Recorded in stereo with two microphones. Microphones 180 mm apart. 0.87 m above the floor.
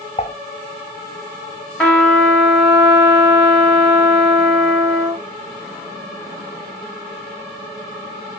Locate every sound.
0.2 s dishes clattering: 35° left (ahead or behind), 0.6 m
1.8 s a trumpet: 5° left (ahead or behind), 2 m